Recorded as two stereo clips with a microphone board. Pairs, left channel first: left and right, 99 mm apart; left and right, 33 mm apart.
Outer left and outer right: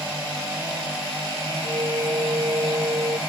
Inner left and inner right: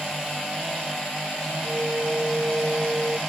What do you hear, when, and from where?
1.6 s a flute: 45° right (ahead or behind)